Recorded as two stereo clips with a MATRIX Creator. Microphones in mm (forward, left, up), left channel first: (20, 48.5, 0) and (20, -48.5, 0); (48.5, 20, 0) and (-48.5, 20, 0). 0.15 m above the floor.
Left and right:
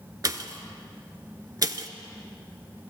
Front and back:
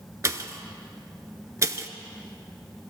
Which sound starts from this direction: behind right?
A pop, at 0.2 s.